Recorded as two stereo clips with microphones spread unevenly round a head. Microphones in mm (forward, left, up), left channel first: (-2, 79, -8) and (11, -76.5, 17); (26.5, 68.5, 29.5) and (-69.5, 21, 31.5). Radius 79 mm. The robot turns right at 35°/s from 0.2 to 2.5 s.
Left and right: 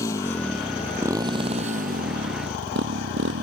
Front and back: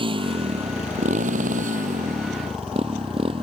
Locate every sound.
0.0 s a motorcycle: 170° left; by 3.4 s 95° right